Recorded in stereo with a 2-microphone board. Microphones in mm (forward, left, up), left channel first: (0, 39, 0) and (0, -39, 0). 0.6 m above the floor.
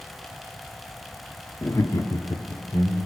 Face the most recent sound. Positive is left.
turn(degrees=60)  # may be behind; listen again after turning